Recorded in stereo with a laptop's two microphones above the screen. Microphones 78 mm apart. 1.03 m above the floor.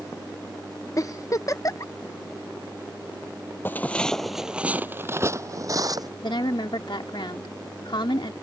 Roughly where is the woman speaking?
Left.